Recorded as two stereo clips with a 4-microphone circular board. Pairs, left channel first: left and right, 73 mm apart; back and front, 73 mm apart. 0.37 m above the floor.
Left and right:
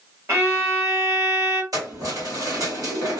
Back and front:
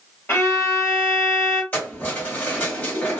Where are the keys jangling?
115° right, 1.5 m.